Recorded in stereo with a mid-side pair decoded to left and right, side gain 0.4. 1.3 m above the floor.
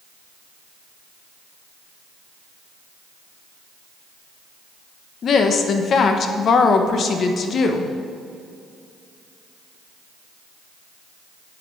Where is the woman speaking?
60° left, 1.3 m.